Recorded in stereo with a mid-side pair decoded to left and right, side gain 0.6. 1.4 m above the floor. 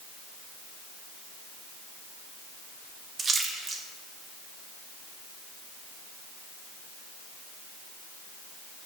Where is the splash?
35° right, 2 m.